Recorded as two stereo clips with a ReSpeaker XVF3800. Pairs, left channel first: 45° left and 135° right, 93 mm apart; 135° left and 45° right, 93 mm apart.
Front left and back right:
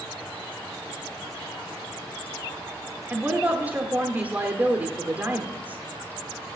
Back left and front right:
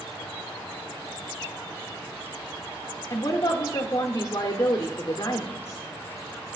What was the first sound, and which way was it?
A woman speaking, 165° left.